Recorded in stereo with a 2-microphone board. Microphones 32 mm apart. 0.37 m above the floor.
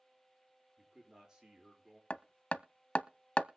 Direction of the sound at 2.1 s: 45° left (ahead or behind).